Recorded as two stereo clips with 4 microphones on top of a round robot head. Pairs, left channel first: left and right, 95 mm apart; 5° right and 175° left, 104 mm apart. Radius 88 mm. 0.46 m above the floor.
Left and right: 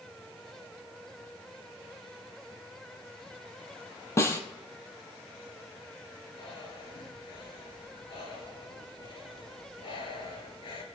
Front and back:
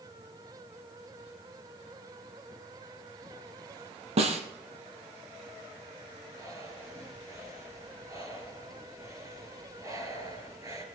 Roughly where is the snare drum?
Behind left.